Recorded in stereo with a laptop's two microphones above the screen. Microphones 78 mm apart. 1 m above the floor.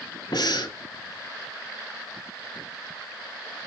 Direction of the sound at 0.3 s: 65° left (ahead or behind).